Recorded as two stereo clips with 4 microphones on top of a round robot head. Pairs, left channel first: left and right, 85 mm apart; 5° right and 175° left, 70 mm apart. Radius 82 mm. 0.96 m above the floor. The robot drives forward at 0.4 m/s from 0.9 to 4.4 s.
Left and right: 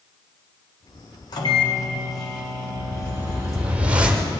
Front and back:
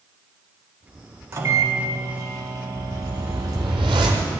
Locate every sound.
1.3 s a microwave: 125° left, 1.8 m; by 3.8 s 145° left, 2.5 m
2.8 s a whoosh: 150° right, 0.7 m; by 4.3 s 165° right, 1.2 m